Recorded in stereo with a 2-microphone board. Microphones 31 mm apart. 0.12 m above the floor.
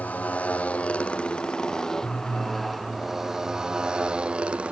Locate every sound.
0.0 s a motorcycle: 50° left (ahead or behind); by 4.7 s 40° right (ahead or behind)